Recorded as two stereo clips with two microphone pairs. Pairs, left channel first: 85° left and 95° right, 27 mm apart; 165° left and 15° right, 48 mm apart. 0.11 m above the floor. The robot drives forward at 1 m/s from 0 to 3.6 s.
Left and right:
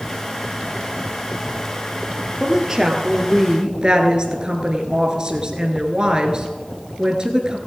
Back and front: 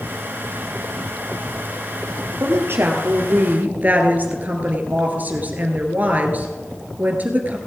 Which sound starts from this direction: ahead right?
A woman speaking, at 2.4 s.